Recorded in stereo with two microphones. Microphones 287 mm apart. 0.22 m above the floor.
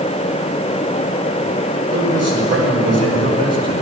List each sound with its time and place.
1.9 s a man speaking: 60° right (ahead or behind), 6.5 m